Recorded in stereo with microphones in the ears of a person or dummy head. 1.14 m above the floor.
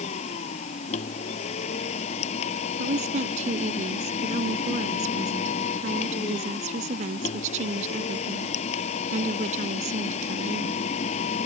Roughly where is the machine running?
Left.